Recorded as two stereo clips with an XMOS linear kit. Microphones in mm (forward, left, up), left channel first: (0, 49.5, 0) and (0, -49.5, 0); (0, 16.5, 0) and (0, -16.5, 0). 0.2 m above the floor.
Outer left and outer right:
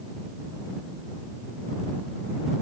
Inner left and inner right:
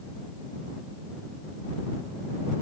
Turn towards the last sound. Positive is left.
No sound to turn to.